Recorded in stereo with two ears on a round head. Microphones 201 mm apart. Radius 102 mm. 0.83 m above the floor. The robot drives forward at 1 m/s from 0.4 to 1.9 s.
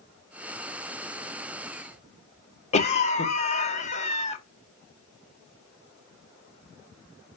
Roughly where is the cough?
Left.